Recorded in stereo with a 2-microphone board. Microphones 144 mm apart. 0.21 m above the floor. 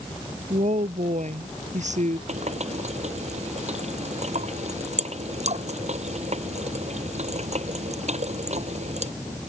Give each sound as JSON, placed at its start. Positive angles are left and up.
{"t": 0.5, "sound": "a woman speaking", "side_deg": -55}
{"t": 2.3, "sound": "a running tap", "side_deg": -50}